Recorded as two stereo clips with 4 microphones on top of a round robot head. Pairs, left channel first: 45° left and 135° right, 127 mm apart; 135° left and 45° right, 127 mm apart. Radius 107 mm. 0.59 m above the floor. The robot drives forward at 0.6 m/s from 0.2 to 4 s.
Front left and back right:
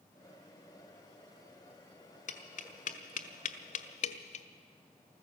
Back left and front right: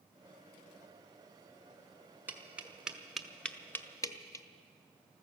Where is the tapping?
30° left, 1.5 m; by 4.5 s 70° left, 0.9 m.